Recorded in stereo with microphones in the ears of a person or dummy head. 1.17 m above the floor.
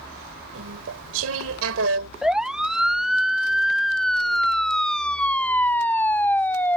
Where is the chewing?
80° right.